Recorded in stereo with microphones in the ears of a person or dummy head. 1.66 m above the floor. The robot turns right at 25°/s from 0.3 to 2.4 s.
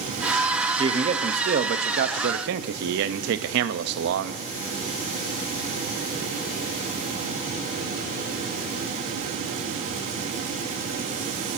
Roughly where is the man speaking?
Behind right.